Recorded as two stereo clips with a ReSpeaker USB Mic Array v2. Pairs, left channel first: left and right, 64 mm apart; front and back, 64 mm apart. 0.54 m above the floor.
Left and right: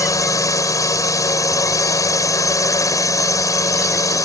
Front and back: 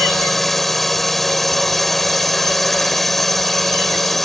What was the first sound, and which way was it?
A drone, 90° left.